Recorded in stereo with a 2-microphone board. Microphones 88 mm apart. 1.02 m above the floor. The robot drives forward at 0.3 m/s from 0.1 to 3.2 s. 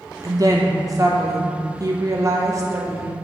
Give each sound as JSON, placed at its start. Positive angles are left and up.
{"t": 0.2, "sound": "a woman speaking", "side_deg": -40, "distance_m": 0.9}